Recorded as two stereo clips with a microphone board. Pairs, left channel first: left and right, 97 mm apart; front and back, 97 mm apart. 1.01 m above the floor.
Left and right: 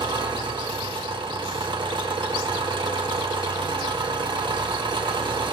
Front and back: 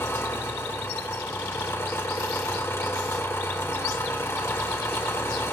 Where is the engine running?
60° right, 1.1 m.